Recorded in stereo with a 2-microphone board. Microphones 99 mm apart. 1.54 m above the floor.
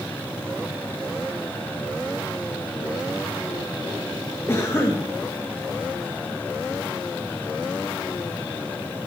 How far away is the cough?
About 2 m.